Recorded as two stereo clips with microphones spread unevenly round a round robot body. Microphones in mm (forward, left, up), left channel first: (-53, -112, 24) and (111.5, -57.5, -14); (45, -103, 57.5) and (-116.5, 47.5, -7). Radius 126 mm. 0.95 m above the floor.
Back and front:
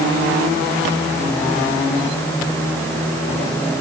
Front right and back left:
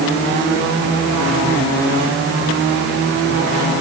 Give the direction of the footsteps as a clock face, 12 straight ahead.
I don't hear footsteps.